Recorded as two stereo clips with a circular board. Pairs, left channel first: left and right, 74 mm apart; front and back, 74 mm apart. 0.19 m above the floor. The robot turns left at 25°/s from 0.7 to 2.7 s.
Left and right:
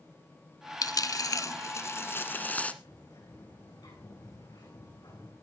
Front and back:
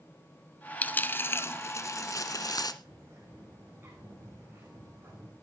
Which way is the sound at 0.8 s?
65° left.